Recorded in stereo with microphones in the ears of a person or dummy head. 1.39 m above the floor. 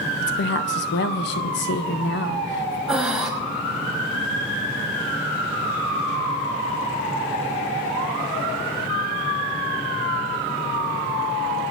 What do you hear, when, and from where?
0.2 s a woman speaking: 60° left (ahead or behind), 0.9 m
2.9 s breathing: 10° right (ahead or behind), 1.0 m